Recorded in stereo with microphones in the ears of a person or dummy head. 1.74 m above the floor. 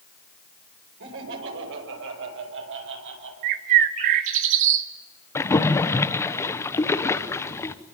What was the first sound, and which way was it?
Laughter, 75° right (ahead or behind).